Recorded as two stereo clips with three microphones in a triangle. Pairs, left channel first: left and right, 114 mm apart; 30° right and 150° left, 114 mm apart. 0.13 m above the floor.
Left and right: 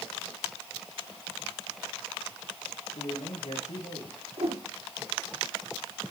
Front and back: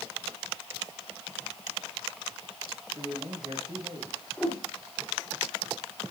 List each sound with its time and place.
3.0 s a man speaking: 100° left, 7.5 m
4.4 s a whoosh: 115° right, 5 m